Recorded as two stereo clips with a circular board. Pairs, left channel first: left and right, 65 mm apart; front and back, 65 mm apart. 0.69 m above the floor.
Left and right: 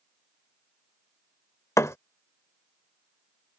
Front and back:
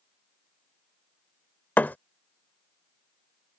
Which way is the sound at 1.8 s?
55° left.